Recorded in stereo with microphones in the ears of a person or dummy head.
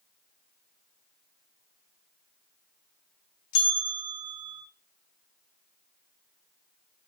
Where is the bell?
65° left (ahead or behind), 1.9 m.